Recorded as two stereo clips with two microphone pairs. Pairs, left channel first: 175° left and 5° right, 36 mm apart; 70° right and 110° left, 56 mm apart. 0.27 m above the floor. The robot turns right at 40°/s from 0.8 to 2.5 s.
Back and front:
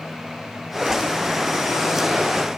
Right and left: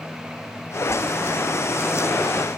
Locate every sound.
Only background noise.